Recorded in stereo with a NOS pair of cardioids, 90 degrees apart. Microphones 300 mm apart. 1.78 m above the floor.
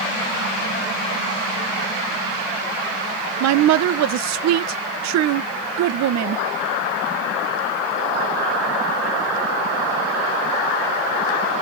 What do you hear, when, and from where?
3.4 s a woman speaking: 70° right, 0.6 m